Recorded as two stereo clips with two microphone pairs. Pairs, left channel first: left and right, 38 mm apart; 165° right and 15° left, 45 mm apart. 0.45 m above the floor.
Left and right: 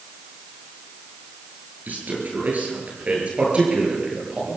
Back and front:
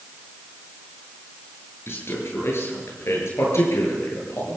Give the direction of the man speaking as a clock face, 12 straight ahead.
5 o'clock.